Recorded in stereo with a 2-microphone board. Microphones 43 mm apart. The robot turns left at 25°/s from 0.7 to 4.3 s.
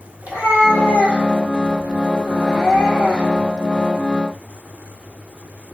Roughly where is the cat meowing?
Behind right.